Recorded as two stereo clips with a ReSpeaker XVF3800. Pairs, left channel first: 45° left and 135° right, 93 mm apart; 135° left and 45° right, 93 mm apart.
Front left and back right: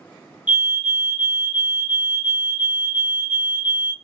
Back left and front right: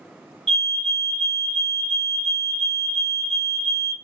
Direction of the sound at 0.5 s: 165° right.